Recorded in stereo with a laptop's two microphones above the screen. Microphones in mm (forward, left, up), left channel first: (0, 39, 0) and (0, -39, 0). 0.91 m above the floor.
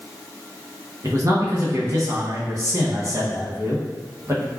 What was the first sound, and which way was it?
A man speaking, 40° right (ahead or behind).